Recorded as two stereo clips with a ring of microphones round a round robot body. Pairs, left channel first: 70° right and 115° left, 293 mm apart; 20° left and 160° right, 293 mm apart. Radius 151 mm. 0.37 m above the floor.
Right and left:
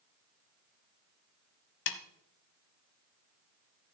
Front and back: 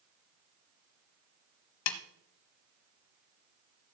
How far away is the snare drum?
About 0.9 m.